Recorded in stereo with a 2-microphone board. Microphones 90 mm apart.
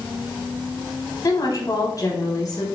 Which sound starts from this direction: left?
A woman speaking, at 1.2 s.